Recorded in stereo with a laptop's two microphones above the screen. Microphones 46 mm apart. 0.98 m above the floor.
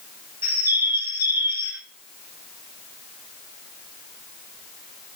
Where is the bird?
70° right (ahead or behind), 2 m.